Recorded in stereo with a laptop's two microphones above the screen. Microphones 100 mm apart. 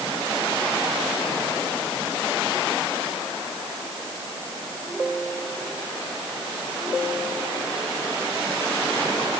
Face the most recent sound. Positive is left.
No sound to turn to.